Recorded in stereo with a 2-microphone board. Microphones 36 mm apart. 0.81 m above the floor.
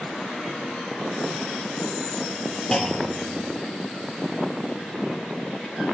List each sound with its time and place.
2.7 s a clunk: 20° left (ahead or behind), 0.5 m